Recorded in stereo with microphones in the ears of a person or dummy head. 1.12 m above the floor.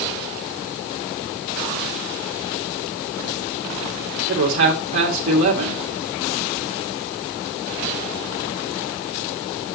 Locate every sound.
4.3 s a man speaking: 70° right (ahead or behind), 2.0 m